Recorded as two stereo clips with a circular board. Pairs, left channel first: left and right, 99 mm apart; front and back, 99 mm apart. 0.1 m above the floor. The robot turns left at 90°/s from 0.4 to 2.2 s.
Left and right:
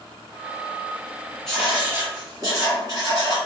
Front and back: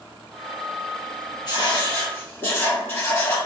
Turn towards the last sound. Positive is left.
turn(degrees=-55)